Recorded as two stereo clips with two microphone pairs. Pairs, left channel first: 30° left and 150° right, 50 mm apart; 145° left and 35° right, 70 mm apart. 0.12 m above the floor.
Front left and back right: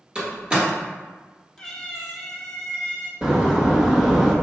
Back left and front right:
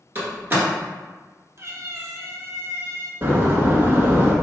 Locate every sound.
0.1 s a door slam: 85° right, 1.6 m
1.6 s a cat meowing: 40° right, 0.8 m
3.2 s a door slam: 75° right, 1.0 m